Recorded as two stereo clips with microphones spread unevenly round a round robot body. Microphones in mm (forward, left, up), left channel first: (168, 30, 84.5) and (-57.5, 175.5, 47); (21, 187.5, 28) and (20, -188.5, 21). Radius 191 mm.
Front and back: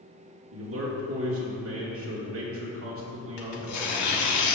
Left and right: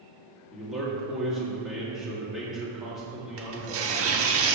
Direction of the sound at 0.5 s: Straight behind.